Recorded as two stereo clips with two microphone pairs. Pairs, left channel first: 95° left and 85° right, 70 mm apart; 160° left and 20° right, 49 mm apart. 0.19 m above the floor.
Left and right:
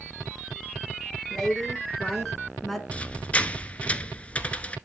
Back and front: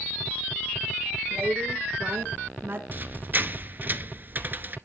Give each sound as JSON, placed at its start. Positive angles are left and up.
{"t": 1.3, "sound": "a woman speaking", "azimuth_deg": 15, "distance_m": 3.5}
{"t": 2.9, "sound": "a squeak", "azimuth_deg": 25, "distance_m": 0.8}